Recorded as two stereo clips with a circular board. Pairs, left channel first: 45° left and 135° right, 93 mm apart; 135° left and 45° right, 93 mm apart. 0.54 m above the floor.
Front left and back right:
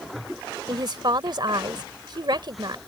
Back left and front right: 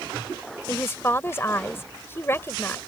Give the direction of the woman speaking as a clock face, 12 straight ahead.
5 o'clock.